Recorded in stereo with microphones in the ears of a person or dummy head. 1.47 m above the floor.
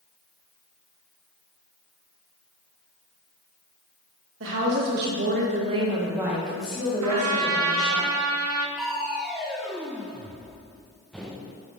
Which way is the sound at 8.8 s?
10° right (ahead or behind).